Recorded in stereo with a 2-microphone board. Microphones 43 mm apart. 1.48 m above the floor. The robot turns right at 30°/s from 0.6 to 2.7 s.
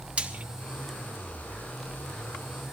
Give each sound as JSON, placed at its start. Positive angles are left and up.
{"t": 0.2, "sound": "frying", "side_deg": -25, "distance_m": 1.2}